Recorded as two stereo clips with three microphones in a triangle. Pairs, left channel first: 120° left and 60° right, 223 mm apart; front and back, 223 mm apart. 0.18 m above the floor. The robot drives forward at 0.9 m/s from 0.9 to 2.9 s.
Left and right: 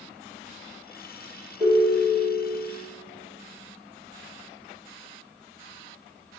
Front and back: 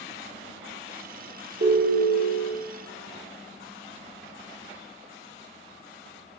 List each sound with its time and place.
1.6 s a ringtone: 150° right, 2.0 m; by 2.5 s 160° right, 2.5 m